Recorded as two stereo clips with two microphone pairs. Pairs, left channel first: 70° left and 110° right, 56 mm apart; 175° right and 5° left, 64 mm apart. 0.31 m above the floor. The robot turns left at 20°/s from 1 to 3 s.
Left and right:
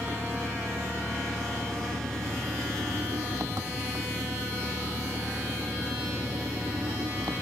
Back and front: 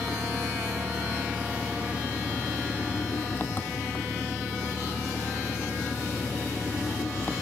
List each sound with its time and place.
0.0 s an engine running: 75° right; by 7.4 s 115° right